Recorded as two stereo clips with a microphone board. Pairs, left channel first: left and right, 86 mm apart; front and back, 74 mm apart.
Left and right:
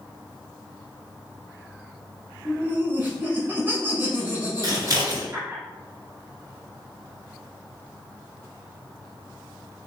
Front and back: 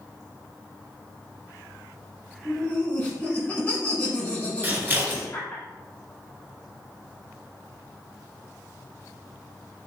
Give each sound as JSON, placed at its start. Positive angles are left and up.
{"t": 2.5, "sound": "laughter", "azimuth_deg": -50, "distance_m": 1.2}
{"t": 4.6, "sound": "scissors", "azimuth_deg": -125, "distance_m": 1.2}